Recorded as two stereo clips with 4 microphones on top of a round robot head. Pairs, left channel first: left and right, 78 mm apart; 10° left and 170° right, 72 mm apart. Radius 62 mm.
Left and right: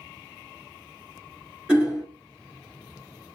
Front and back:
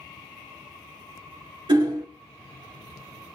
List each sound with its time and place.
1.7 s hammering: 170° right, 2 m